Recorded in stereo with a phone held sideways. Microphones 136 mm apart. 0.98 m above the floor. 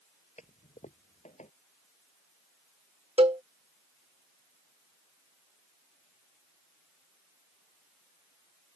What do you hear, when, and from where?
0.4 s a toilet flushing: 60° left (ahead or behind)
3.2 s a cowbell: 50° right (ahead or behind)